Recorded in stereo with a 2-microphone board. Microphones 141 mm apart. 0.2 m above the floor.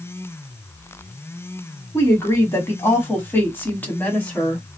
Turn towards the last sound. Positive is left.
turn(degrees=10)  # may be behind; listen again after turning